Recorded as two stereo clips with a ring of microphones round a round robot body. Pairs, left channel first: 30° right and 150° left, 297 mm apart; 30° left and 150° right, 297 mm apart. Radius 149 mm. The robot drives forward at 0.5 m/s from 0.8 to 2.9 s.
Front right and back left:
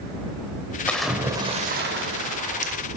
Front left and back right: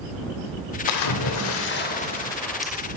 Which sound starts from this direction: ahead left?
A splash, at 0.9 s.